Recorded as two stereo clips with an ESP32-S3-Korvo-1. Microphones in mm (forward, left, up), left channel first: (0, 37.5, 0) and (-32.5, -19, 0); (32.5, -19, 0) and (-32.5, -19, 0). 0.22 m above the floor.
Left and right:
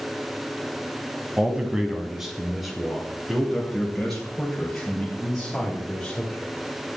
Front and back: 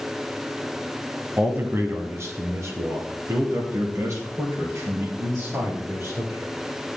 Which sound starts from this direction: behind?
A man speaking, at 1.4 s.